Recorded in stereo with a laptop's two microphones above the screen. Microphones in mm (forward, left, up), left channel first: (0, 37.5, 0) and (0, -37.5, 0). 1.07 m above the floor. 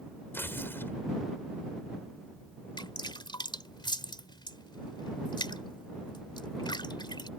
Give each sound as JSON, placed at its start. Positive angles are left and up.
{"t": 0.3, "sound": "tearing paper", "side_deg": 30}
{"t": 2.8, "sound": "dripping", "side_deg": 90}